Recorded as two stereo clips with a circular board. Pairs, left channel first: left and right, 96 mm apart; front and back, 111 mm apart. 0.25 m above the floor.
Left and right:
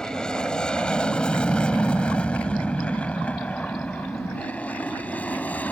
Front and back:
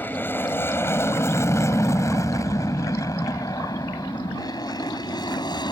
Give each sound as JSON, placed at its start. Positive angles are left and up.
{"t": 0.0, "sound": "an aircraft", "azimuth_deg": 25}